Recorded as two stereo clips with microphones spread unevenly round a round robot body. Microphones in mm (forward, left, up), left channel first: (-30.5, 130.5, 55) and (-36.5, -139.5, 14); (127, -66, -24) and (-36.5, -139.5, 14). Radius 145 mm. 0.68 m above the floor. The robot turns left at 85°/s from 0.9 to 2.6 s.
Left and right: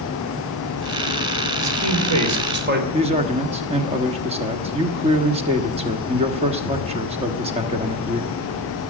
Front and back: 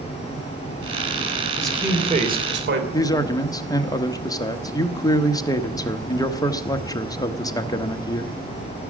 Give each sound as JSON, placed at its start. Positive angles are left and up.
{"t": 1.6, "sound": "a man speaking", "azimuth_deg": -55, "distance_m": 3.0}
{"t": 2.9, "sound": "a man speaking", "azimuth_deg": -35, "distance_m": 1.2}